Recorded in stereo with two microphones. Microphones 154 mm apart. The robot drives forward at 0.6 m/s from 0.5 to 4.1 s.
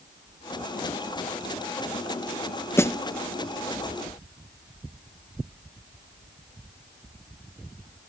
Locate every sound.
2.8 s a snare drum: 15° left (ahead or behind); by 3.0 s 20° left (ahead or behind)